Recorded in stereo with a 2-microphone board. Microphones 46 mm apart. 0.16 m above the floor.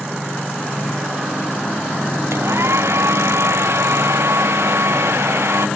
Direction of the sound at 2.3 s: 70° right (ahead or behind).